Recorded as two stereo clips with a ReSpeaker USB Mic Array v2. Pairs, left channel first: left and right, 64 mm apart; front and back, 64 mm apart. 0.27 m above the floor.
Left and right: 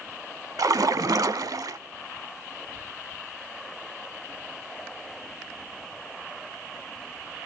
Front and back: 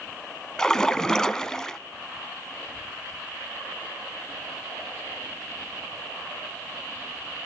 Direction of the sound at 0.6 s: 80° right.